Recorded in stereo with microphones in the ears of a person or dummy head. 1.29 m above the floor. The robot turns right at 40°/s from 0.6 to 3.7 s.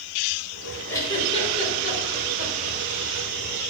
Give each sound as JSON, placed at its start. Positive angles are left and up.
{"t": 0.9, "sound": "a giggle", "side_deg": 15, "distance_m": 5.0}